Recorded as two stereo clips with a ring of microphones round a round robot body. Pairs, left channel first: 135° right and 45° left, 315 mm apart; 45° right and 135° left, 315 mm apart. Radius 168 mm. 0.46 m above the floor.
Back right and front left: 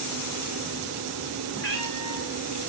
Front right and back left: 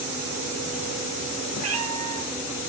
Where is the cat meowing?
175° left, 3.5 m.